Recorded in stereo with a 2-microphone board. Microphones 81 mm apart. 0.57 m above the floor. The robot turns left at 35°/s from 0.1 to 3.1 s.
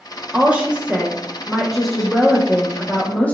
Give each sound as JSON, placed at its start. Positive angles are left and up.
{"t": 0.3, "sound": "a woman speaking", "side_deg": -20, "distance_m": 0.8}